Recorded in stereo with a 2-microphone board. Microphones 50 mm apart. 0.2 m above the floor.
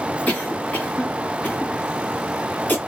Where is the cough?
35° left (ahead or behind), 2 m.